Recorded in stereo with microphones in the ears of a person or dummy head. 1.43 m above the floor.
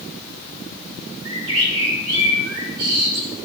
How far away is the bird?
About 3 m.